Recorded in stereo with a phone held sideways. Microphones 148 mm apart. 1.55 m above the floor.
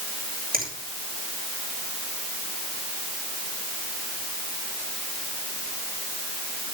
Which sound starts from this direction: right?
A finger snap, at 0.5 s.